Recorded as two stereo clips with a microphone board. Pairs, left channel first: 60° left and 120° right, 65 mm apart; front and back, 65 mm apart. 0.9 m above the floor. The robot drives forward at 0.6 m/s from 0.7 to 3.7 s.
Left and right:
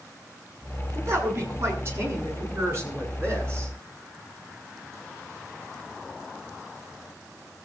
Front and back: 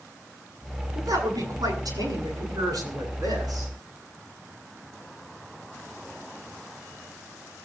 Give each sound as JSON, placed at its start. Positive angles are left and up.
{"t": 0.9, "sound": "a woman speaking", "azimuth_deg": -170, "distance_m": 9.0}